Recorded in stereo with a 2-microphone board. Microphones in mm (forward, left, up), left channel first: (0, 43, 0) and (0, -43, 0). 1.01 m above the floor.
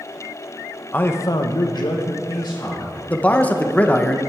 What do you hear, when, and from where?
0.9 s a man speaking: 20° left (ahead or behind), 0.8 m; by 3.0 s 50° left (ahead or behind), 2 m
3.1 s a man speaking: 15° left (ahead or behind), 0.8 m